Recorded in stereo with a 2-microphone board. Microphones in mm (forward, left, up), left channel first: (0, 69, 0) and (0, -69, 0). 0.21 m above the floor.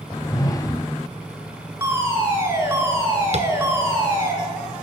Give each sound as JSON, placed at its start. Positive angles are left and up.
{"t": 0.1, "sound": "a whoosh", "side_deg": 25, "distance_m": 0.5}
{"t": 1.8, "sound": "a fire alarm", "side_deg": -20, "distance_m": 4.5}
{"t": 3.3, "sound": "tapping", "side_deg": -55, "distance_m": 1.7}